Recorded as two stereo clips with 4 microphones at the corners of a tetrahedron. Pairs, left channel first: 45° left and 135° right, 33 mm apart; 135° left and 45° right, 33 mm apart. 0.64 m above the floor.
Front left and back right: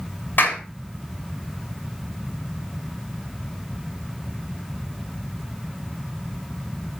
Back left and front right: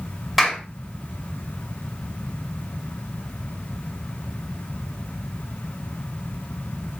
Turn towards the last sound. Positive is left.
turn(degrees=40)